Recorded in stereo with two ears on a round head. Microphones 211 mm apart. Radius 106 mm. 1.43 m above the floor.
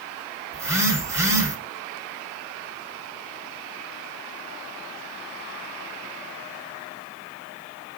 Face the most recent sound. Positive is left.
turn(degrees=-15)  # may be behind; listen again after turning